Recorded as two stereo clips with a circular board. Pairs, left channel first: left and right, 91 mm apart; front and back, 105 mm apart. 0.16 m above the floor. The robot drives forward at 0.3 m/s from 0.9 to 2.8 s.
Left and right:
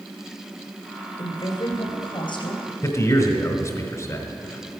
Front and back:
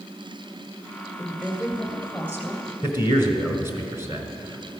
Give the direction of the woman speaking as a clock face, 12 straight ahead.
9 o'clock.